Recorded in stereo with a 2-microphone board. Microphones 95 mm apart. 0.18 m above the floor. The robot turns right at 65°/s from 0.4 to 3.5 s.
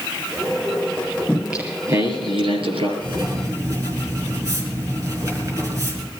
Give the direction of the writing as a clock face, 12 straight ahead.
2 o'clock.